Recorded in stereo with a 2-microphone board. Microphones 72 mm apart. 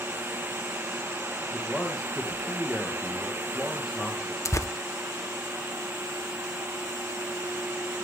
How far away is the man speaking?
About 2.5 m.